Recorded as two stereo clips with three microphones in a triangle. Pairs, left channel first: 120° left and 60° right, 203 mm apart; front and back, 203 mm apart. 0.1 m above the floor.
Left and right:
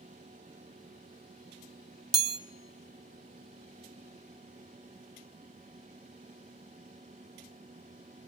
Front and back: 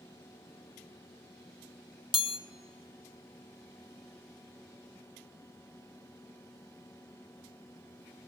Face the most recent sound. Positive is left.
turn(degrees=-60)